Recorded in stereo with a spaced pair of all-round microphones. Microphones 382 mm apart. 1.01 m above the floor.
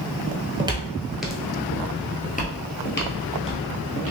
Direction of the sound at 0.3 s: 15° right (ahead or behind).